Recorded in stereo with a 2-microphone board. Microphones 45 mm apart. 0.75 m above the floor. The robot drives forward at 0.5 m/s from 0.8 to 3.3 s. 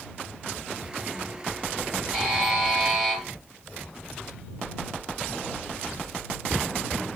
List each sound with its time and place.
2.1 s a buzzer: 30° right (ahead or behind), 3 m; by 3.2 s 25° right (ahead or behind), 3.5 m